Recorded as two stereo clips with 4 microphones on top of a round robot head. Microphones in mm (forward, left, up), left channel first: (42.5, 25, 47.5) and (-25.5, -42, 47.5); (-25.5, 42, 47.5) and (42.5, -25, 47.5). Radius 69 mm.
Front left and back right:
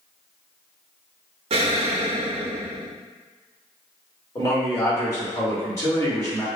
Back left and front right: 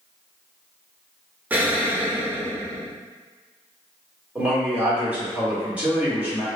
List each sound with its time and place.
1.5 s an explosion: 120° right, 0.6 m
4.3 s a man speaking: 20° left, 1.6 m